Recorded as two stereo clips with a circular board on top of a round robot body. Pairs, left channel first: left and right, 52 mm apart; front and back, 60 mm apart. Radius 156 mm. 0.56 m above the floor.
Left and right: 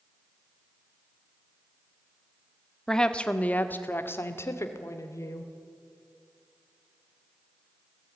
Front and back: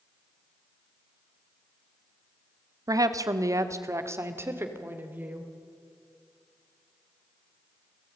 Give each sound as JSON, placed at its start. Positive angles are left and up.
{"t": 2.9, "sound": "a woman speaking", "azimuth_deg": 170, "distance_m": 1.8}